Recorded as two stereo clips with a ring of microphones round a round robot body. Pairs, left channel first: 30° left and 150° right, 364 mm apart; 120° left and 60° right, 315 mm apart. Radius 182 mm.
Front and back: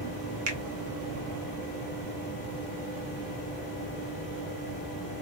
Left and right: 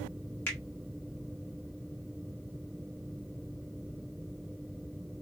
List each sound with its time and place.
0.5 s a finger snap: 160° right, 0.8 m